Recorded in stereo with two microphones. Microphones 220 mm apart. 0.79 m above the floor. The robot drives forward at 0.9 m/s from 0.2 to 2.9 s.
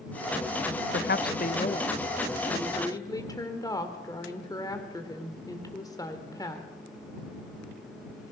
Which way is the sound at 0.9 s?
55° left (ahead or behind).